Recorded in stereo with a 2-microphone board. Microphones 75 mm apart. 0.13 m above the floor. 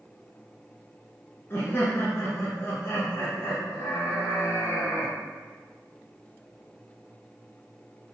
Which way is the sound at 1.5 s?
35° left (ahead or behind).